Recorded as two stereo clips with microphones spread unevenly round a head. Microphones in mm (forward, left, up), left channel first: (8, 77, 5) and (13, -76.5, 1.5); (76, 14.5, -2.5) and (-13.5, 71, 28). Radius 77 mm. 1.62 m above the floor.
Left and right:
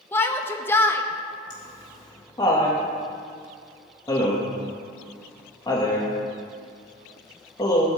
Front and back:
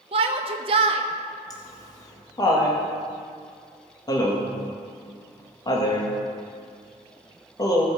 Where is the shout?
165° left, 0.9 m.